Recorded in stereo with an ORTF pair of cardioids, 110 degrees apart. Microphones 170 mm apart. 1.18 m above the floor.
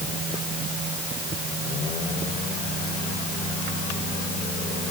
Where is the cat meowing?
No cat meowing in this recording.